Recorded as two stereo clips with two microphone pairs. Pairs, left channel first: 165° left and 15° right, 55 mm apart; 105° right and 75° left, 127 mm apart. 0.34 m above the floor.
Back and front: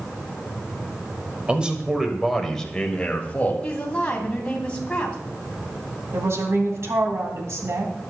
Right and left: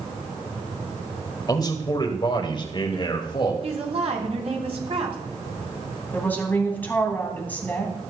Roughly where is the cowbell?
I don't hear a cowbell.